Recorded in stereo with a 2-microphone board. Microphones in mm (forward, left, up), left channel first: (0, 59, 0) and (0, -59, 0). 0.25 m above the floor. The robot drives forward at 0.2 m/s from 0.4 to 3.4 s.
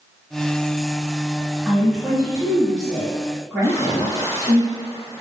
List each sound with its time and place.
1.6 s a woman speaking: 10° right (ahead or behind), 1.3 m
3.6 s a splash: 30° left (ahead or behind), 1.3 m